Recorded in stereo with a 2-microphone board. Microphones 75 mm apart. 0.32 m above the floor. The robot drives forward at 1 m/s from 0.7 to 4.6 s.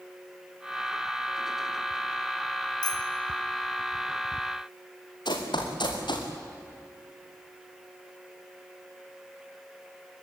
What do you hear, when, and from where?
2.8 s a bicycle bell: 70° left (ahead or behind), 2.5 m; by 3.0 s 65° left (ahead or behind), 2.5 m
5.2 s running footsteps: 80° left, 4 m; by 6.3 s 85° left, 4.5 m